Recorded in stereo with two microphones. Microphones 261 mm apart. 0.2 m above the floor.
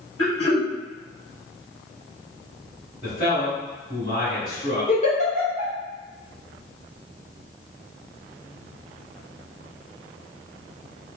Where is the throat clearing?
65° left (ahead or behind), 1.2 m.